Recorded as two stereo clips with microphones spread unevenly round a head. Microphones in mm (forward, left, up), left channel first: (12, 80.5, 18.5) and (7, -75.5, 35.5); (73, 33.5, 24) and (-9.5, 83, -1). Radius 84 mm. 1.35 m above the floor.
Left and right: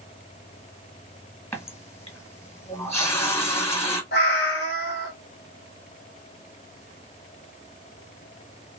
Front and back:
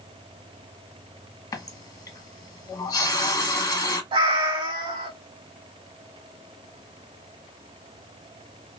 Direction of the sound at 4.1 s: 115° left.